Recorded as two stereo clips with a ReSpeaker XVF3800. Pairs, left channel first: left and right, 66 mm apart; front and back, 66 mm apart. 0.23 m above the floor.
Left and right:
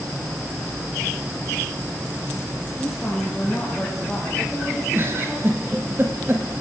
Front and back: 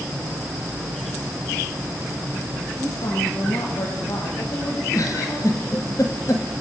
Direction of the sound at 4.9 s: 35° right.